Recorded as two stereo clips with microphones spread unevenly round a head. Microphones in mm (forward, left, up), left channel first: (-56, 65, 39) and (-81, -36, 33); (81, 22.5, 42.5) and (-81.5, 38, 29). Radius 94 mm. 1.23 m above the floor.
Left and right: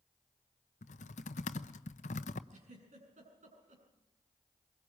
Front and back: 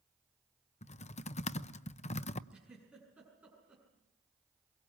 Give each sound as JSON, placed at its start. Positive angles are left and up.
{"t": 0.8, "sound": "typing on a keyboard", "azimuth_deg": 45, "distance_m": 0.8}
{"t": 2.5, "sound": "a giggle", "azimuth_deg": -100, "distance_m": 7.5}